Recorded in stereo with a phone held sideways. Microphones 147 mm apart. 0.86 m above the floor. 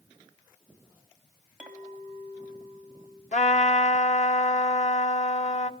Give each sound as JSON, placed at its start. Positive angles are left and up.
{"t": 1.6, "sound": "a clink", "side_deg": -10, "distance_m": 4.0}
{"t": 3.3, "sound": "a trumpet", "side_deg": 55, "distance_m": 1.6}